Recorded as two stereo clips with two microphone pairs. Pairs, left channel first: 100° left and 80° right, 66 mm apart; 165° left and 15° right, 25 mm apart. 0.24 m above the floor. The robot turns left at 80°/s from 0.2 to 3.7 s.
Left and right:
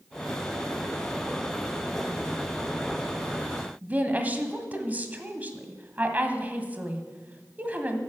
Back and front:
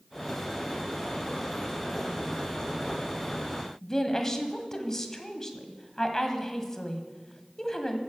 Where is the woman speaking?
130° right, 1.5 m.